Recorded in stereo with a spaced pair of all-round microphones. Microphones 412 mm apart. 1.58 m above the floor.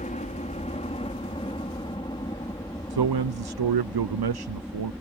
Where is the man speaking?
65° right (ahead or behind).